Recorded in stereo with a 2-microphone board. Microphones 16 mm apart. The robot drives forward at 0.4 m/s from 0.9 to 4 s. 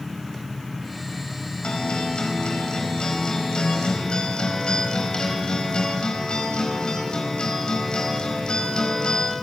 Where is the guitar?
80° left, 4.5 m; by 9.3 s 70° left (ahead or behind), 4.5 m.